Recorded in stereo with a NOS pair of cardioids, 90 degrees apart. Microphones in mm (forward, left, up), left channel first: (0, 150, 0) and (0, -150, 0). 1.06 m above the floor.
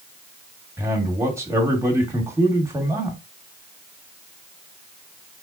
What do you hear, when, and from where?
0.8 s a man speaking: 10° right, 1.5 m